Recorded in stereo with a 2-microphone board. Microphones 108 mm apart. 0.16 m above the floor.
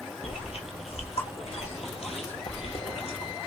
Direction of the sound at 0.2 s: 75° left (ahead or behind).